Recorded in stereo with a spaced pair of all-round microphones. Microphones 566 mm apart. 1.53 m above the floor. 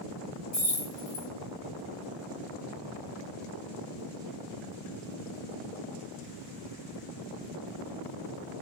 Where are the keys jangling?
30° left (ahead or behind), 0.8 m.